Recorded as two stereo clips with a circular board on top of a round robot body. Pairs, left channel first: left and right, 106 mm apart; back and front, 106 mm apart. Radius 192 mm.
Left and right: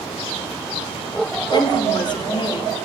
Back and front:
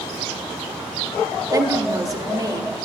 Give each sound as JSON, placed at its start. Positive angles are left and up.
{"t": 1.5, "sound": "a woman speaking", "azimuth_deg": 55, "distance_m": 1.5}